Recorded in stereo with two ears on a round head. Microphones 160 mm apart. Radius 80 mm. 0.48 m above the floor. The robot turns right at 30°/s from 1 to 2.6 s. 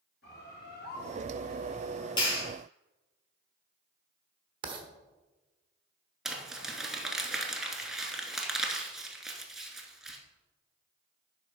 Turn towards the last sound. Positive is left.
turn(degrees=-5)  # may be behind; listen again after turning